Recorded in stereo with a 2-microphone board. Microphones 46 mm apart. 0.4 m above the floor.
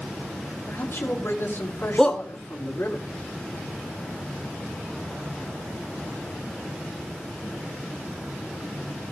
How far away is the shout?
About 1.0 m.